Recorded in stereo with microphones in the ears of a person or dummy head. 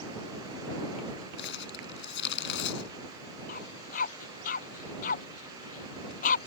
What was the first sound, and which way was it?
Crumpling, 65° left (ahead or behind).